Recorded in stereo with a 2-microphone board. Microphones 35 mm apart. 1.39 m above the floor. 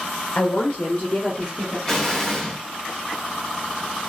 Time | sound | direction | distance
0.3 | a woman speaking | 70° left (ahead or behind) | 0.6 m
1.9 | an explosion | 15° left (ahead or behind) | 0.7 m